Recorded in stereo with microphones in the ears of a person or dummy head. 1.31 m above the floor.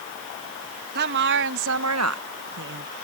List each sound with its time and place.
0.9 s a woman speaking: 60° right (ahead or behind); by 2.9 s 40° right (ahead or behind)